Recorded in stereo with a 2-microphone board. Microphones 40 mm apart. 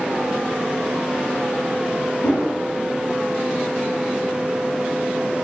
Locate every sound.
2.2 s a whoosh: 65° left (ahead or behind), 1.3 m